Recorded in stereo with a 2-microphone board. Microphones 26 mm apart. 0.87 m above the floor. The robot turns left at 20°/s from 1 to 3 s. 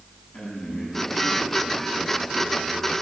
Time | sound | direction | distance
0.3 | a man speaking | 45° left | 7 m